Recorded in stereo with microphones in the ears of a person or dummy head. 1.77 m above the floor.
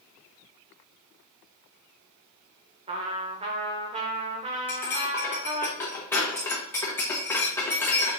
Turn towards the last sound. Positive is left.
turn(degrees=5)  # may be behind; listen again after turning